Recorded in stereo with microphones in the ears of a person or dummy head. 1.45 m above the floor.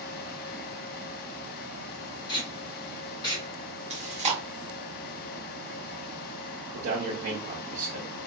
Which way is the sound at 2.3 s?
25° left (ahead or behind).